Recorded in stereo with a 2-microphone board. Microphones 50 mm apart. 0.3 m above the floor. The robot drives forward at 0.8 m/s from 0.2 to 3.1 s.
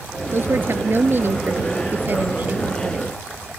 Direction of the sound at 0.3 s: 50° right (ahead or behind).